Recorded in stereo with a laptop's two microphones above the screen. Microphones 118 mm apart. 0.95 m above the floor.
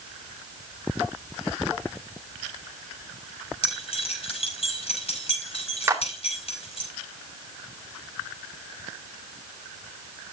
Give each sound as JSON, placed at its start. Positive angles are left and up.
{"t": 3.6, "sound": "keys jangling", "side_deg": 60, "distance_m": 5.0}
{"t": 5.9, "sound": "a clap", "side_deg": -20, "distance_m": 2.5}